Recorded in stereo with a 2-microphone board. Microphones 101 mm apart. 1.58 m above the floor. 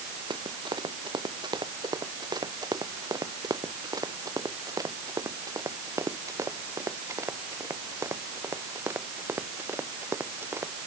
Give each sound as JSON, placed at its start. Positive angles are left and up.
{"t": 0.3, "sound": "running footsteps", "side_deg": -45}